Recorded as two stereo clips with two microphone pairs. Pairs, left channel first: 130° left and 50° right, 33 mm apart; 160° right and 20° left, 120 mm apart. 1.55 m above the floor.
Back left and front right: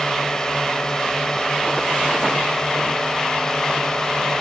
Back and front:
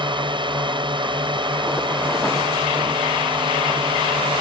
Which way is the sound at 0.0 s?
65° left.